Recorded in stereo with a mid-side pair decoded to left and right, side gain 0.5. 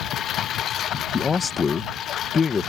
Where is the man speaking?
35° left.